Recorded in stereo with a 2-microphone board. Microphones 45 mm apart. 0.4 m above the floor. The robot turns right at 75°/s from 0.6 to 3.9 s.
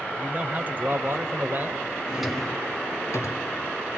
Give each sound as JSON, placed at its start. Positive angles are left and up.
{"t": 0.2, "sound": "a man speaking", "azimuth_deg": -135, "distance_m": 1.6}
{"t": 2.1, "sound": "a drawer", "side_deg": -15, "distance_m": 2.5}